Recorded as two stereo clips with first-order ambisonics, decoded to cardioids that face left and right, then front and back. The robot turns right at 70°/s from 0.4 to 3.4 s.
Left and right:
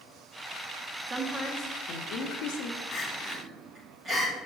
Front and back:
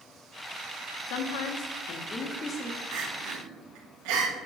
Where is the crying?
155° left, 1.5 m; by 4.5 s 170° right, 1.5 m.